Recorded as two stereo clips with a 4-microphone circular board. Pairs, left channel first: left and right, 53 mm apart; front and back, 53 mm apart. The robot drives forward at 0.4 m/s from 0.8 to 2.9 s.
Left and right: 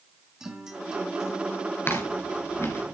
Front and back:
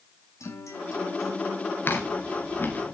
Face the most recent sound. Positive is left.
turn(degrees=50)